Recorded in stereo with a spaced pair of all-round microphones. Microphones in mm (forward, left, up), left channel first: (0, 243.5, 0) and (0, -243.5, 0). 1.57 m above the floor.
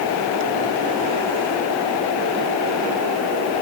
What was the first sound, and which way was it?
Only background noise.